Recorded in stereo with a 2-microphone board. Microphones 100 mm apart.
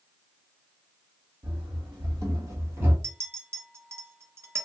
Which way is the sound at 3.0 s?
25° right (ahead or behind).